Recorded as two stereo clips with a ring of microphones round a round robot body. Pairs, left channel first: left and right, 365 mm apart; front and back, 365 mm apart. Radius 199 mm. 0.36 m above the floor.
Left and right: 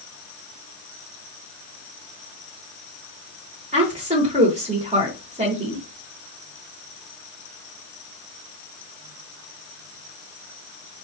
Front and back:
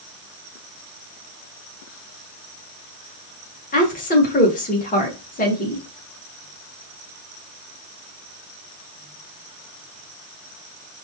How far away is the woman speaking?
About 1.0 m.